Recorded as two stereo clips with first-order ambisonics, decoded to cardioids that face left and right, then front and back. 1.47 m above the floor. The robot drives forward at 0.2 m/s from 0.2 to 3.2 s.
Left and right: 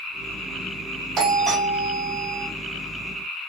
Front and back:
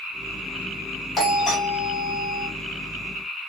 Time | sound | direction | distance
1.2 | a doorbell | 50° right | 0.9 m